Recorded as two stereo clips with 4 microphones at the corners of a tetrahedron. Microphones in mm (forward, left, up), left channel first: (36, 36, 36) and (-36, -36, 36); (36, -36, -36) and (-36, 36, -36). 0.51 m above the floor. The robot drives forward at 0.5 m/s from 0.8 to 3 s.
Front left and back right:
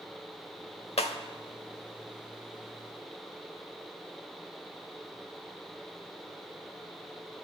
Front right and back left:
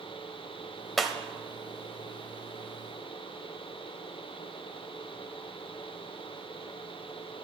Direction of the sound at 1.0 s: 45° left.